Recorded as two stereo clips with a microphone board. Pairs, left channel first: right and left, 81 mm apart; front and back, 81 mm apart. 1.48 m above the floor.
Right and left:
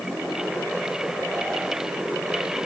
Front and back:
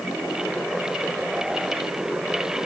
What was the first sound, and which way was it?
Only background noise.